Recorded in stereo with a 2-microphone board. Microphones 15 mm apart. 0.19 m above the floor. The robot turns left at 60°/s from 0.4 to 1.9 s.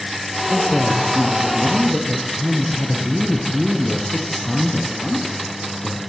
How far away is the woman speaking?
About 3.5 m.